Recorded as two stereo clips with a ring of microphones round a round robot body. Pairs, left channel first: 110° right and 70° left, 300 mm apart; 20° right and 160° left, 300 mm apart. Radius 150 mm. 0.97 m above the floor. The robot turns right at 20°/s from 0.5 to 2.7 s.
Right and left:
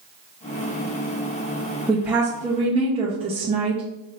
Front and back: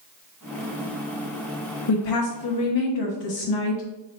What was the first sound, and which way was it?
A woman speaking, 20° right.